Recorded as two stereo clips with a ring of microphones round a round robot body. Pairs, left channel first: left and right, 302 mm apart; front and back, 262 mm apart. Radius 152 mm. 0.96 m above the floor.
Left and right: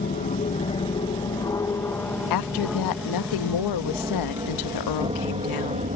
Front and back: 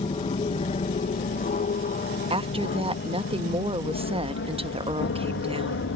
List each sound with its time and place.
0.0 s an aircraft: 50° left; by 6.0 s 30° right
2.3 s a woman speaking: 110° left